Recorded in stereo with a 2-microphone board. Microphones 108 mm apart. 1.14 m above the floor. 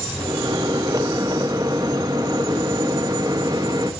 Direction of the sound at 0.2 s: 40° right (ahead or behind).